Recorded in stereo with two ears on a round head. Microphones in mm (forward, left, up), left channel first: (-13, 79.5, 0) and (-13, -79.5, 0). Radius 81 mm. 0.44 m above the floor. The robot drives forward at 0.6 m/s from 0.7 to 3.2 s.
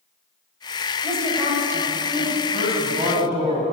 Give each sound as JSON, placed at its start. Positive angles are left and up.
{"t": 1.0, "sound": "a woman speaking", "side_deg": -15, "distance_m": 2.0}
{"t": 2.5, "sound": "a man speaking", "side_deg": -40, "distance_m": 2.0}